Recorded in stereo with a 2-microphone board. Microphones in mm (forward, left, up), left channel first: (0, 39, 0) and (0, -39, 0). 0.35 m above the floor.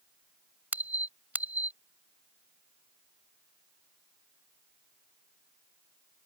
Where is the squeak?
25° right (ahead or behind).